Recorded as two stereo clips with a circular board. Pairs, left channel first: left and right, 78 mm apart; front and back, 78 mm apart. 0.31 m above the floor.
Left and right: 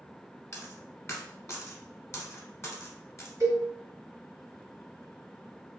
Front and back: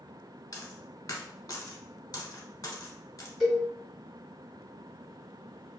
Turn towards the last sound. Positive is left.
turn(degrees=-85)